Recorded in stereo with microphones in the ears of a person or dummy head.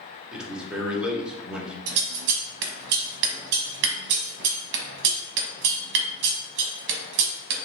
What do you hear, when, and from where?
0.3 s a man speaking: 5° right (ahead or behind), 1.1 m
1.9 s scissors: 65° right (ahead or behind), 0.9 m